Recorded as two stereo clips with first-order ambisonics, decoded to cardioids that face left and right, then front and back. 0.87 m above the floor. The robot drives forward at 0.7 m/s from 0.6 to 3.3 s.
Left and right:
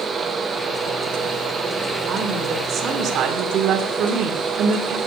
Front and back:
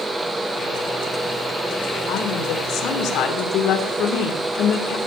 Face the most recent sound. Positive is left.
turn(degrees=-40)